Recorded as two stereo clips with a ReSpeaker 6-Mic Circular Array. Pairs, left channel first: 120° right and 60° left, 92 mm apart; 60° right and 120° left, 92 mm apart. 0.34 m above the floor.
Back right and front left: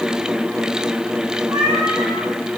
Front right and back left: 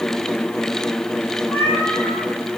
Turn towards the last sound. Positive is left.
turn(degrees=15)